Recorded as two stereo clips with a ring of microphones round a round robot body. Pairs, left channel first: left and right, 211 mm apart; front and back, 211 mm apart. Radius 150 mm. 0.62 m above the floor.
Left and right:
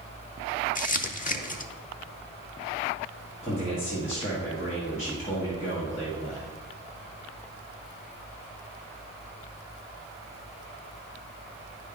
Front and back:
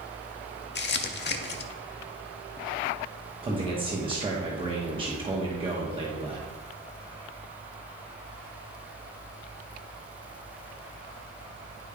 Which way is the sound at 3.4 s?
130° left.